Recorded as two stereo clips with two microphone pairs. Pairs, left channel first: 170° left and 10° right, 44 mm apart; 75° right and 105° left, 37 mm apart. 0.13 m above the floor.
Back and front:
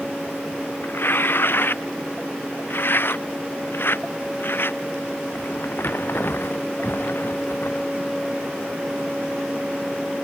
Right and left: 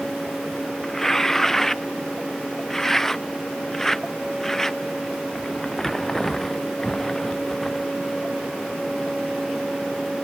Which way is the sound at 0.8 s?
155° right.